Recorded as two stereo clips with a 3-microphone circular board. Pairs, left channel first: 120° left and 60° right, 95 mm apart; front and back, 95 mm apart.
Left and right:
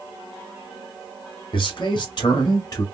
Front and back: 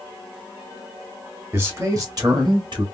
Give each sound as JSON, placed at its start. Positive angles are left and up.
{"t": 1.5, "sound": "a man speaking", "azimuth_deg": 120, "distance_m": 1.9}